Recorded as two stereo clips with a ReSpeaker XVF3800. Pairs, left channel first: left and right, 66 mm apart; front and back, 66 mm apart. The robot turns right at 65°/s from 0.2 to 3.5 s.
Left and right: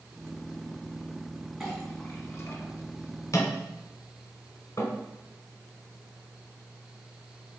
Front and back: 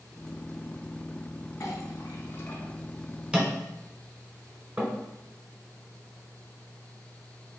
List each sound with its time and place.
1.6 s a clink: 5° right, 1.0 m; by 4.9 s 120° left, 1.0 m